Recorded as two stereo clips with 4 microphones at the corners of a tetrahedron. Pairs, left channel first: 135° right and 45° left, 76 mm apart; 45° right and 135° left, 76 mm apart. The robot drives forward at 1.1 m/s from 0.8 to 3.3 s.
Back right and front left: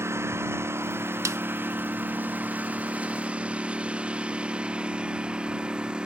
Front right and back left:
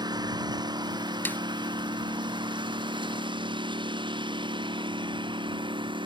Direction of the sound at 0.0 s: 105° left.